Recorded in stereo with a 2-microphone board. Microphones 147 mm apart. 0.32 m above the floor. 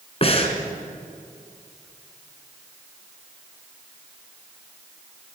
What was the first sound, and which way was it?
Breathing, 45° left (ahead or behind).